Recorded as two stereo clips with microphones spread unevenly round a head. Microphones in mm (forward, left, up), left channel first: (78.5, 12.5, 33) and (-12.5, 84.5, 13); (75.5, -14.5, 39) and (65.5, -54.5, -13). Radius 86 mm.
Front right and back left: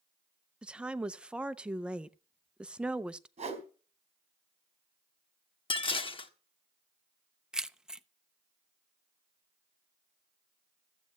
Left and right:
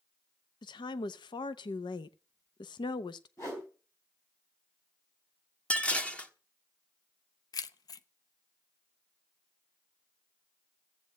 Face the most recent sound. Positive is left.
turn(degrees=60)